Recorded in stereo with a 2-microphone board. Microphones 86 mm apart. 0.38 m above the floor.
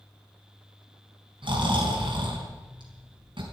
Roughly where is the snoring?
Right.